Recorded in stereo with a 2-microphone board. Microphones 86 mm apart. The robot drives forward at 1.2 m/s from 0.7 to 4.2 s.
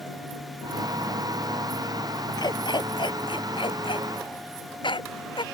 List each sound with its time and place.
2.4 s a dog barking: 55° left (ahead or behind); by 5.4 s 75° left (ahead or behind)